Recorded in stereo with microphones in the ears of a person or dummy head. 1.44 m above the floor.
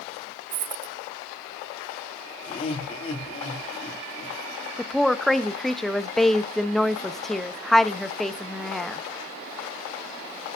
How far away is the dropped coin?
About 1.4 m.